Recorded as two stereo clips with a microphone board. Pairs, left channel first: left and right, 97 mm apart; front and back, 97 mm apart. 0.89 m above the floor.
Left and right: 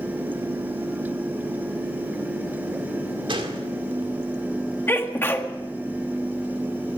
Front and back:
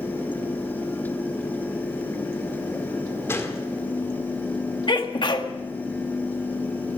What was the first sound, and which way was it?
A gunshot, 65° right.